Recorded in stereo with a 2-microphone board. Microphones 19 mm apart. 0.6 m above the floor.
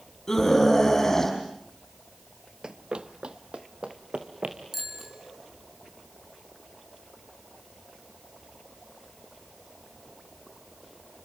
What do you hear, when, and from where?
0.3 s a scream: 25° left (ahead or behind), 5 m
2.6 s running footsteps: 40° right (ahead or behind), 0.7 m; by 4.6 s 60° right (ahead or behind), 3 m
4.7 s a bicycle bell: 15° right (ahead or behind), 5 m